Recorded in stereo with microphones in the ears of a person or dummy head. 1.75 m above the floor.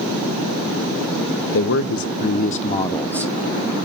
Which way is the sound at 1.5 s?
65° left (ahead or behind).